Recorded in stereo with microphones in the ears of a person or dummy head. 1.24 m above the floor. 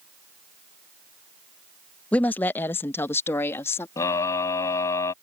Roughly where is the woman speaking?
Centre.